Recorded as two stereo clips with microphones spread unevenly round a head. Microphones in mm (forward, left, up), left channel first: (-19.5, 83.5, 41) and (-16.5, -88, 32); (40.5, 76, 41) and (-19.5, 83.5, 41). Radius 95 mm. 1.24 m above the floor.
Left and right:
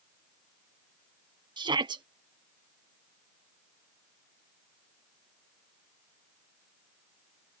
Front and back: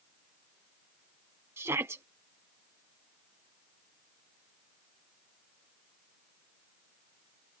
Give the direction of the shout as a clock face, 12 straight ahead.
5 o'clock.